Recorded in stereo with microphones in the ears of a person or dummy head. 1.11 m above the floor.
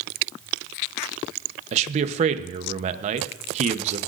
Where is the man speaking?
40° right (ahead or behind), 0.9 m.